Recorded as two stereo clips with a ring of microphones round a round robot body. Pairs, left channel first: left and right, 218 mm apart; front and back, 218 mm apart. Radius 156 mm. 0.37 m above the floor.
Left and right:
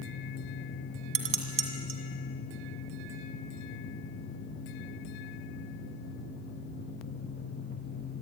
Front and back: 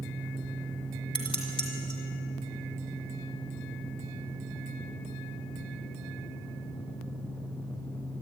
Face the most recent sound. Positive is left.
turn(degrees=-75)